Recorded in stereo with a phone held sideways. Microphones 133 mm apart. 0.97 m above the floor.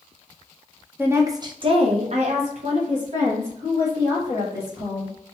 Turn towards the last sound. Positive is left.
turn(degrees=-45)  # may be behind; listen again after turning